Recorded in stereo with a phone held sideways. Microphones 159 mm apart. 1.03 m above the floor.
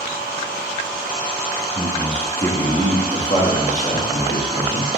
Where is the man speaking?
5° right (ahead or behind), 0.9 m; by 4.9 s 60° left (ahead or behind), 1.9 m.